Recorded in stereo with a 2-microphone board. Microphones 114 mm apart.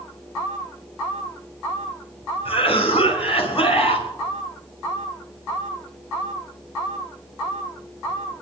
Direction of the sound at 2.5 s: 65° left (ahead or behind).